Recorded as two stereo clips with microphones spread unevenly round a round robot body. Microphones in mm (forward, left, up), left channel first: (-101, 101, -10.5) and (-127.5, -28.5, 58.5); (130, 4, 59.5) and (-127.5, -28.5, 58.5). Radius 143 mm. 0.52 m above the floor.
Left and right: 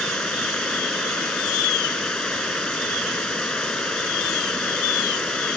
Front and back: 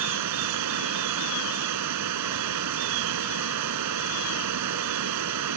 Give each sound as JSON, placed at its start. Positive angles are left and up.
{"t": 0.0, "sound": "running water", "azimuth_deg": 165}